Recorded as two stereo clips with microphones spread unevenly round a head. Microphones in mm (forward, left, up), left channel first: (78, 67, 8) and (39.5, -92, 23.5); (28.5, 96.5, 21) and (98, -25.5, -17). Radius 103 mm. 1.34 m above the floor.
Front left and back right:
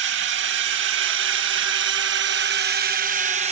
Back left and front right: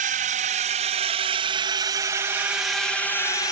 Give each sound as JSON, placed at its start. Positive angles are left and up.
{"t": 0.0, "sound": "a drone", "azimuth_deg": -105}